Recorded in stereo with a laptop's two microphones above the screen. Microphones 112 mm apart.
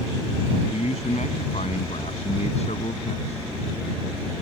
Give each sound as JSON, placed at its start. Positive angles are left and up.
{"t": 0.7, "sound": "a man speaking", "side_deg": 75}